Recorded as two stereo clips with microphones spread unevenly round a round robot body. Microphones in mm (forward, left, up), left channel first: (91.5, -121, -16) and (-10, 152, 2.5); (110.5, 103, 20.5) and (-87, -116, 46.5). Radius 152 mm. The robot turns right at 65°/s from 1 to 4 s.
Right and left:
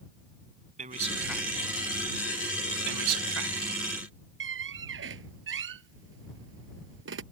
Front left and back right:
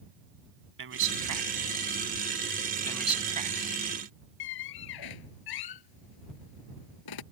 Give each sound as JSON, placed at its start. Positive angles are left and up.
{"t": 0.8, "sound": "a man speaking", "azimuth_deg": 180}
{"t": 2.9, "sound": "a man speaking", "azimuth_deg": 125}
{"t": 4.4, "sound": "a squeak", "azimuth_deg": 65}